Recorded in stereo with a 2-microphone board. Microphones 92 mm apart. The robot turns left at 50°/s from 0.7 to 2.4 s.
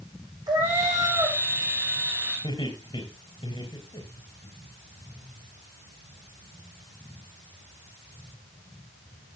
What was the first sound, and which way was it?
A cat meowing, 130° right.